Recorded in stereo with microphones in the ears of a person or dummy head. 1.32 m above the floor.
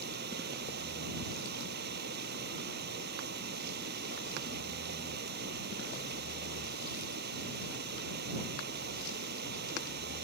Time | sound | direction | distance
0.0 | running water | 60° right (ahead or behind) | ?